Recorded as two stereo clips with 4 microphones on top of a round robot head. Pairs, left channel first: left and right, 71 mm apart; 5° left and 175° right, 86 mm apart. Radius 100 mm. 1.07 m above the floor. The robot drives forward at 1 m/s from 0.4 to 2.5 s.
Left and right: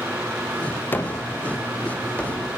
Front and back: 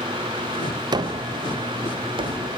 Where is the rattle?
No rattle in this recording.